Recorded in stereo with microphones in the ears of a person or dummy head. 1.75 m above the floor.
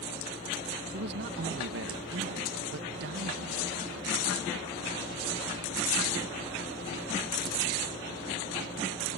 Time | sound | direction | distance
0.9 | a man speaking | 65° right (ahead or behind) | ?